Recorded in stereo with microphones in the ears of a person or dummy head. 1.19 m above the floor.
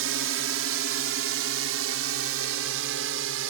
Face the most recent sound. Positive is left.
turn(degrees=-75)  # may be behind; listen again after turning